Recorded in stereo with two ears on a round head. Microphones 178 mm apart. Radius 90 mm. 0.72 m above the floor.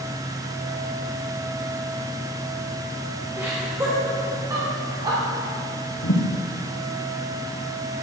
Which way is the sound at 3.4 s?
10° right (ahead or behind).